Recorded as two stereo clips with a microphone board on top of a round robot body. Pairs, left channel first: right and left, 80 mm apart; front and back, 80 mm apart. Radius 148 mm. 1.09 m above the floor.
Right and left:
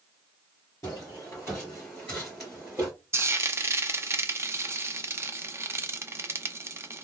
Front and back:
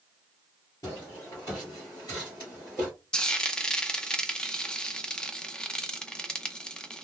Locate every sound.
0.8 s footsteps: 40° right, 1.5 m; by 2.9 s 65° left, 1.0 m
3.1 s frying: 70° left, 0.7 m